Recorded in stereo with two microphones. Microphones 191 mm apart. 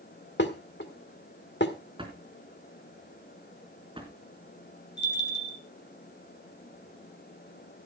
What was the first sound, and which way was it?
Dishes clattering, 80° left.